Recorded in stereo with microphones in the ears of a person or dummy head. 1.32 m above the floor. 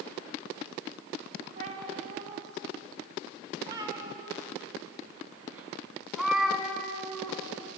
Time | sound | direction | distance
1.6 | a cat meowing | 45° right (ahead or behind) | 3.5 m